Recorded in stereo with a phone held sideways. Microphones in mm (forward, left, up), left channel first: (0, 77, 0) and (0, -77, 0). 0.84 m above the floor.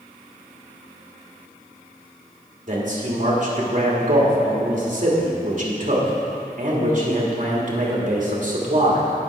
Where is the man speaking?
55° right (ahead or behind), 2 m.